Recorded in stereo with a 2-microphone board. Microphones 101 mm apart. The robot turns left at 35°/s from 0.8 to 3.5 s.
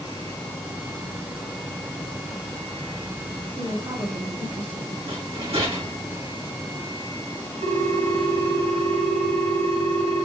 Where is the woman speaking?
45° right (ahead or behind), 2.5 m.